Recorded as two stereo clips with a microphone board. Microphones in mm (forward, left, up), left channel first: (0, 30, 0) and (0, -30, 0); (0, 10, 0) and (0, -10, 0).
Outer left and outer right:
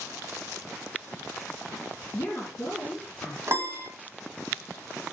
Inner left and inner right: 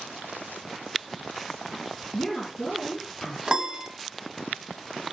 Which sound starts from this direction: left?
A woman speaking, at 2.1 s.